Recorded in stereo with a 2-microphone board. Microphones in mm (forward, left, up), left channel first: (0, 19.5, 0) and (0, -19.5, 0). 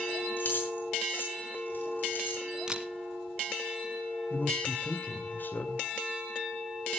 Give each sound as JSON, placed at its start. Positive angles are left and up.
{"t": 0.4, "sound": "keys jangling", "side_deg": 60, "distance_m": 5.5}
{"t": 2.7, "sound": "a camera shutter", "side_deg": -20, "distance_m": 1.5}
{"t": 4.3, "sound": "a man speaking", "side_deg": 55, "distance_m": 2.0}